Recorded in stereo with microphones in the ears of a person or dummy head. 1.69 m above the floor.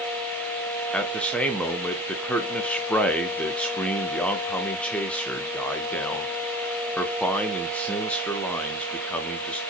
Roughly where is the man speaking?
Centre.